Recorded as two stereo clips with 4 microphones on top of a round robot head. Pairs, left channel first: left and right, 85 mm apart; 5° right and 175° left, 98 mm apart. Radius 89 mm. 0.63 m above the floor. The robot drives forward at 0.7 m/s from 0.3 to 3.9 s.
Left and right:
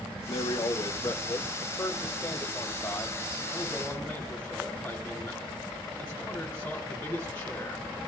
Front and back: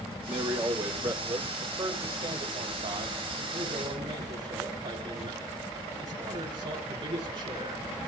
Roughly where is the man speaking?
Behind left.